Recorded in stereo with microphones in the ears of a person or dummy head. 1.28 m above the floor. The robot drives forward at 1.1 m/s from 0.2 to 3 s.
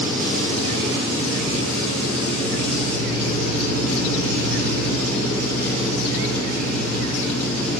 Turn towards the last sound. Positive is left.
turn(degrees=-55)  # may be behind; listen again after turning